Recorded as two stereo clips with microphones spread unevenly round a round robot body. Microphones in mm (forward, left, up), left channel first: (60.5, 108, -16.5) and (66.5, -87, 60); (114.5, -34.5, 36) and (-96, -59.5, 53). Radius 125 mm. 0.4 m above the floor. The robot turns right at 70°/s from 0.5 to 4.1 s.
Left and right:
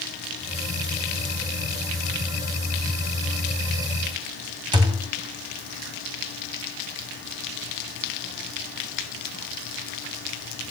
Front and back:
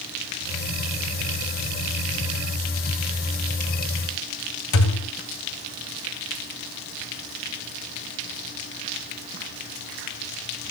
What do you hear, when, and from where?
4.7 s a thud: 15° right, 0.9 m